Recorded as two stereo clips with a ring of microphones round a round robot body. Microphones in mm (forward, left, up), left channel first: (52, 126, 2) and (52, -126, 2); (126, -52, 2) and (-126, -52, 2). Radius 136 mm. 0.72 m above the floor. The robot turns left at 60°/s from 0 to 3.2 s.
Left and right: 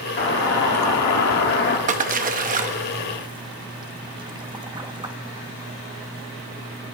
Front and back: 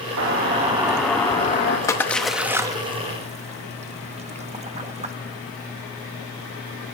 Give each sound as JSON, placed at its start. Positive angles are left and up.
{"t": 0.2, "sound": "a doorbell", "azimuth_deg": 145, "distance_m": 1.8}
{"t": 1.9, "sound": "a splash", "azimuth_deg": -65, "distance_m": 0.7}